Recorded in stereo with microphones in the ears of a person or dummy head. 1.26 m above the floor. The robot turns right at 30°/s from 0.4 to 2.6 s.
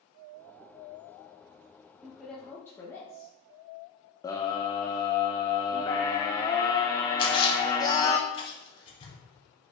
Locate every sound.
2.0 s a woman speaking: centre (ahead or behind), 1.1 m; by 3.3 s 20° left (ahead or behind), 1.1 m
4.2 s a scream: 15° left (ahead or behind), 0.6 m
7.2 s a splash: 35° left (ahead or behind), 2.0 m